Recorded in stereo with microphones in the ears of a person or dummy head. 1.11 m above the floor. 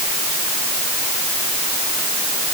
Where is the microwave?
No microwave in this recording.